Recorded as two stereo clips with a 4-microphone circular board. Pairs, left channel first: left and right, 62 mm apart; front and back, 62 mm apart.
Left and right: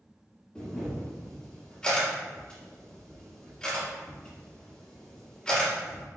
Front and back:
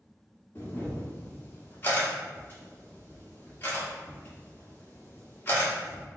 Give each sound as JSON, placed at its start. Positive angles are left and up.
{"t": 0.6, "sound": "a camera shutter", "azimuth_deg": 25, "distance_m": 1.4}